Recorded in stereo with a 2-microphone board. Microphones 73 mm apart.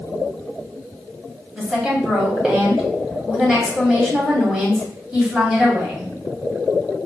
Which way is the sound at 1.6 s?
10° right (ahead or behind).